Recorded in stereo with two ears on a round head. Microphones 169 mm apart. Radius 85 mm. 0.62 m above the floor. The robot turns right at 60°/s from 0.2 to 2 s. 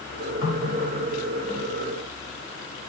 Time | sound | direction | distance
0.4 | a running tap | 50° left | 1.6 m